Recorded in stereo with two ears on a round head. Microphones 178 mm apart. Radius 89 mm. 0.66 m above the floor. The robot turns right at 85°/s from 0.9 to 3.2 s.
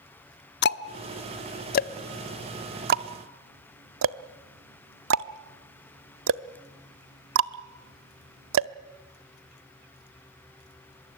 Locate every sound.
0.6 s ticking: 60° left (ahead or behind), 0.6 m; by 8.7 s 70° right (ahead or behind), 0.6 m